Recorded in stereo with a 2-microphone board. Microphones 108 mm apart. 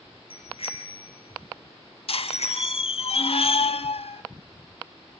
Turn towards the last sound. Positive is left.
turn(degrees=60)  # may be behind; listen again after turning